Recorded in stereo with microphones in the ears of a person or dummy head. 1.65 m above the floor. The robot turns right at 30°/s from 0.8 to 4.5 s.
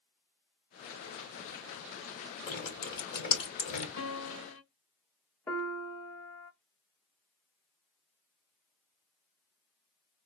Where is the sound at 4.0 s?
60° left (ahead or behind), 3 m; by 4.6 s 55° left (ahead or behind), 3 m.